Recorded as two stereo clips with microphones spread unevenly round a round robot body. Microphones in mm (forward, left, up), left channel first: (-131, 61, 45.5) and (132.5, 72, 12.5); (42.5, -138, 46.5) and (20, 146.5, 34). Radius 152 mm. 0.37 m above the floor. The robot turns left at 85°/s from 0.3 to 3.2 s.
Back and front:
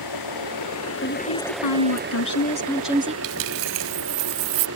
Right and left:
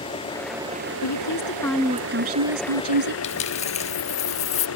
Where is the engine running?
160° right; by 4.8 s 45° right.